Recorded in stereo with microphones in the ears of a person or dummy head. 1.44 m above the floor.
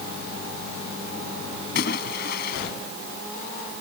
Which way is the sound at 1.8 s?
60° left (ahead or behind).